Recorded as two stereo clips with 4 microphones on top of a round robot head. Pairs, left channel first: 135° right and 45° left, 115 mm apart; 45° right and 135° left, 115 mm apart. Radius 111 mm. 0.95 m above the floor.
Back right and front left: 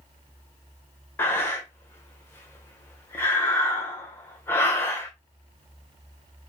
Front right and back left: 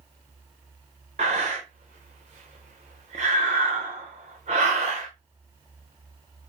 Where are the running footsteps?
I don't hear running footsteps.